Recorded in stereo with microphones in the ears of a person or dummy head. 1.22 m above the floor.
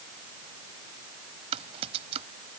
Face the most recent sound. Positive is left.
turn(degrees=-35)  # may be behind; listen again after turning